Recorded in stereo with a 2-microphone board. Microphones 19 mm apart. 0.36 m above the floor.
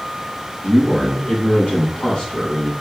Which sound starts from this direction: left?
A man speaking, at 0.6 s.